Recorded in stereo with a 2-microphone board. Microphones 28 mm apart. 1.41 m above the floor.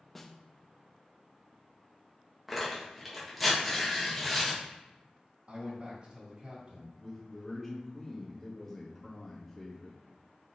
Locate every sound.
0.1 s a snare drum: 5° left (ahead or behind), 0.8 m
2.5 s tearing paper: centre (ahead or behind), 1.9 m
5.5 s a man speaking: 40° right (ahead or behind), 2.5 m
7.0 s a man speaking: 5° left (ahead or behind), 3 m